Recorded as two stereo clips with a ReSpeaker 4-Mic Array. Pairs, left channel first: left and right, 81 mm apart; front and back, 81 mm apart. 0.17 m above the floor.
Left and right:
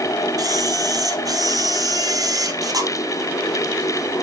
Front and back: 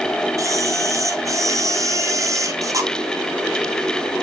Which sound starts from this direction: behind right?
A camera shutter, at 0.4 s.